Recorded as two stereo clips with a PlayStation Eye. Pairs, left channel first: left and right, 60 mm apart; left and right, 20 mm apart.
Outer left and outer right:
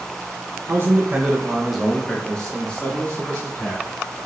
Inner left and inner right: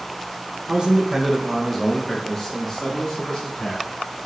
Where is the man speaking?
40° right (ahead or behind), 0.8 m; by 3.9 s 30° left (ahead or behind), 2 m.